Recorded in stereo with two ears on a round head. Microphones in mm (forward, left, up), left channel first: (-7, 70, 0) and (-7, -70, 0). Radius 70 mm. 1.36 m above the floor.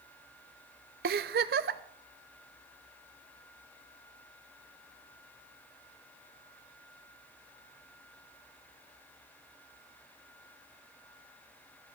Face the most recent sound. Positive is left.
turn(degrees=-75)  # may be behind; listen again after turning